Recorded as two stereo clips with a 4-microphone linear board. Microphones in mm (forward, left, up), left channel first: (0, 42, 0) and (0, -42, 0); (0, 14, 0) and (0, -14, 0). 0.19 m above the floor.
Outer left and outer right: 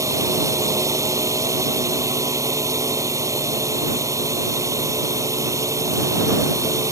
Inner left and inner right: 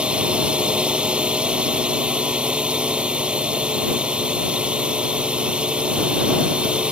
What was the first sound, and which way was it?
A drone, 35° right (ahead or behind).